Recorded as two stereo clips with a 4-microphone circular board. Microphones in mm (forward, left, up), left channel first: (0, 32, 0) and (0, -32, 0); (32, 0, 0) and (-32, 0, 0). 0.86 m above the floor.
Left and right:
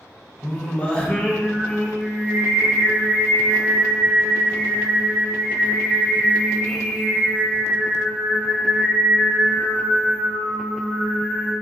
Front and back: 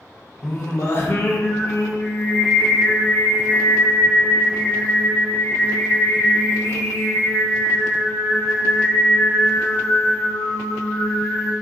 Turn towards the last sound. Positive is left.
turn(degrees=25)